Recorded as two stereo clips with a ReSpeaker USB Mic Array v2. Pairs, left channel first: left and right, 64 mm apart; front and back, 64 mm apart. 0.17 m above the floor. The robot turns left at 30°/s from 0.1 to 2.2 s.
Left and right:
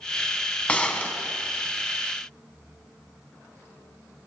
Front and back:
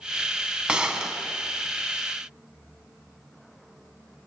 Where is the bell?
No bell in this recording.